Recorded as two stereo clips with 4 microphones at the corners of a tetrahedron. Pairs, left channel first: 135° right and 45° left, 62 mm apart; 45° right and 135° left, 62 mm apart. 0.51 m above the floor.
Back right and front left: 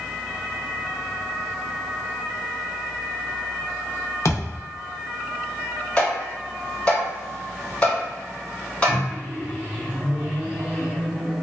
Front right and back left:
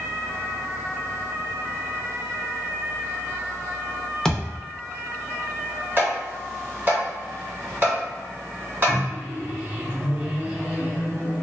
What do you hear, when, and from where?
4.2 s a thud: 125° right, 0.6 m
6.0 s tapping: 170° left, 1.7 m
8.9 s a microwave: 90° left, 1.1 m